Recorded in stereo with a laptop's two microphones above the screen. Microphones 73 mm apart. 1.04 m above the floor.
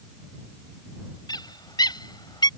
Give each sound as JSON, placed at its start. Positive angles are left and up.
{"t": 1.3, "sound": "a bird", "side_deg": 75}